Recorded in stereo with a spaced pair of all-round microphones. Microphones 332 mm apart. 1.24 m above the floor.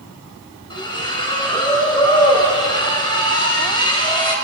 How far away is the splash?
About 4.5 m.